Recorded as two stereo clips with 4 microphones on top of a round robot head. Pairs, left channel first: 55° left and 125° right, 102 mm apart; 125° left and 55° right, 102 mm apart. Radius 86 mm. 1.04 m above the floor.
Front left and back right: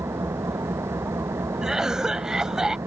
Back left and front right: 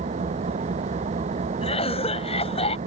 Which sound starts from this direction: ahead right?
An engine running, at 0.0 s.